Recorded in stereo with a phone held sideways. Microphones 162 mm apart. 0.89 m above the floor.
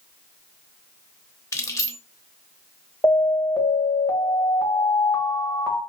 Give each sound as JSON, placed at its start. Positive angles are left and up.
{"t": 1.5, "sound": "keys jangling", "side_deg": 20, "distance_m": 0.8}
{"t": 3.0, "sound": "an alarm", "side_deg": 15, "distance_m": 1.5}